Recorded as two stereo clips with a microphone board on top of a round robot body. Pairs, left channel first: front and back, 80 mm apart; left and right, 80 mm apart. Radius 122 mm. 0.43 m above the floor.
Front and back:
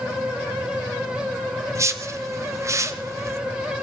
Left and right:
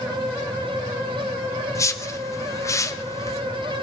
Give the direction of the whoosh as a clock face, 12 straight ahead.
8 o'clock.